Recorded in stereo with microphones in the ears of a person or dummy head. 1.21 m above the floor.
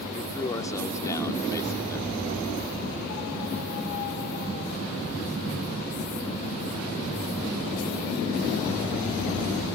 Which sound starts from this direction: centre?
A man speaking, at 0.1 s.